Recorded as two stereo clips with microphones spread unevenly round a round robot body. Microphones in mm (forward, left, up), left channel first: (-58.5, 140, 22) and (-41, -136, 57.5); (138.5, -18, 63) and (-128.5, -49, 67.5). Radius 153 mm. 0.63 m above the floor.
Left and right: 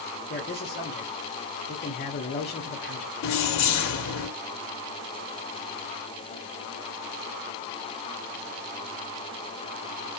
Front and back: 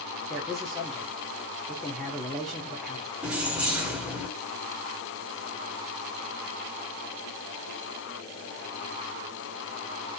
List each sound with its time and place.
0.3 s a man speaking: 95° left, 1.0 m
3.2 s keys jangling: 100° left, 0.9 m